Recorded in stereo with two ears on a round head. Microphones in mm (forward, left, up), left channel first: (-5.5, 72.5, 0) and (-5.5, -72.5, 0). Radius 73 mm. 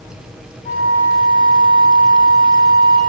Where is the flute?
45° left (ahead or behind), 2 m.